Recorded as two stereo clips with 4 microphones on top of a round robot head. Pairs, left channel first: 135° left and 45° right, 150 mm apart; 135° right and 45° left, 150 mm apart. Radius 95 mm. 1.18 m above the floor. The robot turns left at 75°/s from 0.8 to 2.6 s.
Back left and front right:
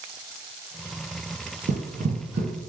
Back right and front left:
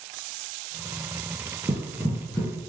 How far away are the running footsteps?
About 1.6 m.